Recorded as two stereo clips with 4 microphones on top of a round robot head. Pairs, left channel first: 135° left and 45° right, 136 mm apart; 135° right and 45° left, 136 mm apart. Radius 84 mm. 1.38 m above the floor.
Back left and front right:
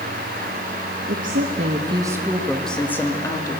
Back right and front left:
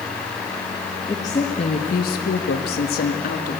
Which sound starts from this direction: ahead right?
A woman speaking, at 1.1 s.